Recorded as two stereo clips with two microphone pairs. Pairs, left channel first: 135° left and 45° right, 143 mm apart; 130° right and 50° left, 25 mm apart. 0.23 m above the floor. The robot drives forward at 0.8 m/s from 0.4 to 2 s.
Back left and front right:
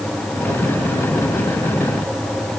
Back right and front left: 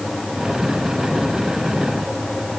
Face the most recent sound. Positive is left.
No sound to turn to.